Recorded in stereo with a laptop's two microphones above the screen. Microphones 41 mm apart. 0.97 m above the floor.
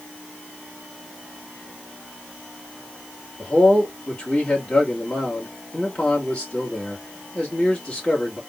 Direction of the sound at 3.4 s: 25° left (ahead or behind).